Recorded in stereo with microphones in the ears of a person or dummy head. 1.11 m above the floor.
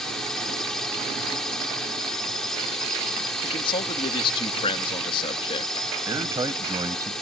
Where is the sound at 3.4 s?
25° left (ahead or behind).